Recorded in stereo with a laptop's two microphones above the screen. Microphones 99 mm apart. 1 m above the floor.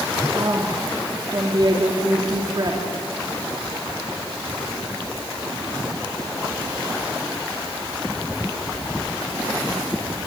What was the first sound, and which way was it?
A woman speaking, 45° right (ahead or behind).